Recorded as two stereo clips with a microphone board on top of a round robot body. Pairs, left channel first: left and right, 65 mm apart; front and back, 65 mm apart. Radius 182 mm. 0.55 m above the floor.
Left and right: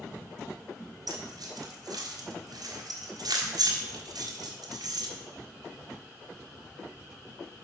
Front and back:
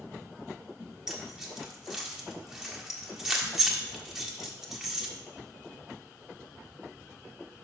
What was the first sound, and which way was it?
Keys jangling, 100° right.